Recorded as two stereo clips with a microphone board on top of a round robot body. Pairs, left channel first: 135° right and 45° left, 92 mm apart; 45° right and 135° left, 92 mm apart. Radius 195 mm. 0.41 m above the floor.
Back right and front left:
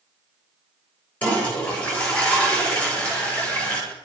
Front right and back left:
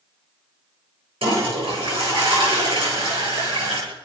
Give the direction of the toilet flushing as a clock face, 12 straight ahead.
7 o'clock.